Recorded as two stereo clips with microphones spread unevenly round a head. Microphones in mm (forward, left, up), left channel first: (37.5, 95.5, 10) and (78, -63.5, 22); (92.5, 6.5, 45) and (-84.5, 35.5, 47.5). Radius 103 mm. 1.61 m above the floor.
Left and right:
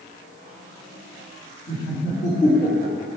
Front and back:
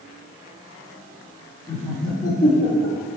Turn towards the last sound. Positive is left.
turn(degrees=45)